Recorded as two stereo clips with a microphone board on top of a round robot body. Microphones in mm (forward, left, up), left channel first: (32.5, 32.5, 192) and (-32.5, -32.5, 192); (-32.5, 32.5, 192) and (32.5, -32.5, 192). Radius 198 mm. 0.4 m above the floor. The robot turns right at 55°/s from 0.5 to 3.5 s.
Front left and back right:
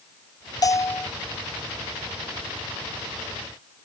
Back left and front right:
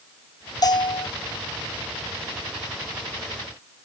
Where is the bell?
90° left; by 1.1 s 115° left.